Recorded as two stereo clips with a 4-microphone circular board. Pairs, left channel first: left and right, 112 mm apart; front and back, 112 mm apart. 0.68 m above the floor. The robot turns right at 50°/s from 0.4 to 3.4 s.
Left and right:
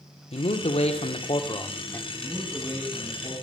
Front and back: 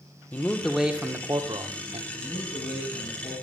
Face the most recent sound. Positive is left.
turn(degrees=40)